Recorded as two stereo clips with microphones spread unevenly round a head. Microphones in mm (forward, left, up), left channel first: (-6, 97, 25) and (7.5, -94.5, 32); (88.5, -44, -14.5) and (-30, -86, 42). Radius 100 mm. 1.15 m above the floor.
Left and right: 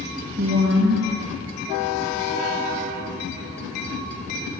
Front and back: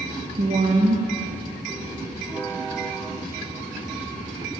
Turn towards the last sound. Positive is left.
turn(degrees=-125)